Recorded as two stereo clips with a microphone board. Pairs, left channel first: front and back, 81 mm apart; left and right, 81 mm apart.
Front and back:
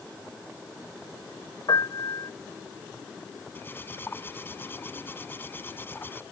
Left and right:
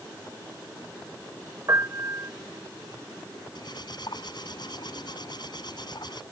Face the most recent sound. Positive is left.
turn(degrees=65)